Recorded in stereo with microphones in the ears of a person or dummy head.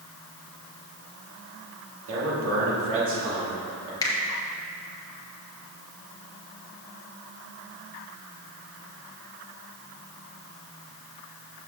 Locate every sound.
2.1 s a man speaking: 65° right (ahead or behind), 2.5 m
4.0 s a finger snap: 20° left (ahead or behind), 1.3 m